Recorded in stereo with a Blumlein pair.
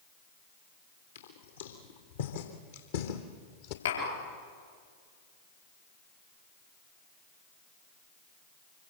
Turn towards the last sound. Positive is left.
turn(degrees=70)